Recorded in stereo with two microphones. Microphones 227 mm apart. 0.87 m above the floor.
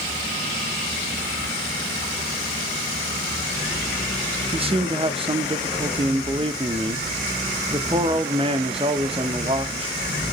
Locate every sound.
4.5 s a man speaking: 25° right (ahead or behind), 1.0 m